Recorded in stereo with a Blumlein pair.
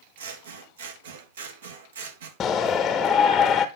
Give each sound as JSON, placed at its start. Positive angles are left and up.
{"t": 0.2, "sound": "scissors", "azimuth_deg": -65, "distance_m": 1.9}
{"t": 2.4, "sound": "a shout", "azimuth_deg": 25, "distance_m": 0.8}